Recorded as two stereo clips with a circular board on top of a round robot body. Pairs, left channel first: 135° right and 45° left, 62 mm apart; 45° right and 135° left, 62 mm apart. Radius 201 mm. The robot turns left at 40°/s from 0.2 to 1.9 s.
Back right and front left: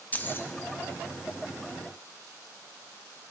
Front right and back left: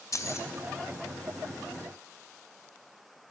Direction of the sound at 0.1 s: 75° right.